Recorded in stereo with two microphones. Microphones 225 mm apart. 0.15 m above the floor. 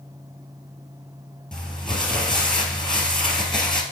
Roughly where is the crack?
I don't hear a crack.